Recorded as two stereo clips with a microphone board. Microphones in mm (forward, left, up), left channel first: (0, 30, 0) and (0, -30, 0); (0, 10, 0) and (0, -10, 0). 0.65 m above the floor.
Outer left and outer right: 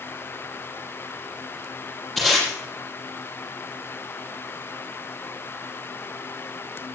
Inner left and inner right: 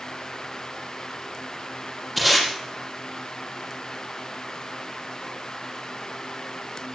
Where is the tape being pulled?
5° left (ahead or behind), 7 m.